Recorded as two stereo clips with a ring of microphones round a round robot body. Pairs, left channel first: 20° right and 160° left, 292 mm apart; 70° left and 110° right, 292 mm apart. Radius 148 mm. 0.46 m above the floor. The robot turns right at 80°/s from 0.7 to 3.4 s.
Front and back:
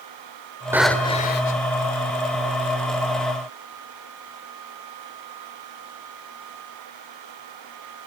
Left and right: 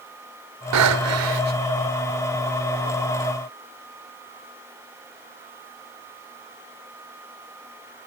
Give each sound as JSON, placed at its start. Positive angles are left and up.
{"t": 0.7, "sound": "breathing", "azimuth_deg": -120, "distance_m": 1.4}